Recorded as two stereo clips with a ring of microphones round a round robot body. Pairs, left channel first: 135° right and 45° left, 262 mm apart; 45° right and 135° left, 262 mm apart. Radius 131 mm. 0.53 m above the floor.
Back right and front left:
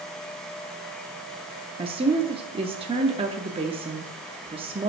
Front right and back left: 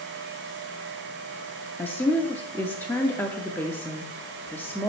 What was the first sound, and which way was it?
A woman speaking, 25° left.